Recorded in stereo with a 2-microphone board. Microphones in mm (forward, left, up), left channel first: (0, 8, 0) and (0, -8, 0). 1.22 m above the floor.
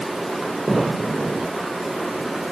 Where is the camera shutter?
I don't hear a camera shutter.